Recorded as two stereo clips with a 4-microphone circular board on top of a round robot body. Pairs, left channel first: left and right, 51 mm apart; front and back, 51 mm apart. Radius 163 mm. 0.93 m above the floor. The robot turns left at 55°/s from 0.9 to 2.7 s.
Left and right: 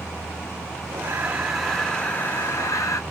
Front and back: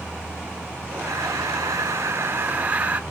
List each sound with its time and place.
1.0 s breathing: 145° right, 1.3 m; by 3.0 s 120° left, 1.3 m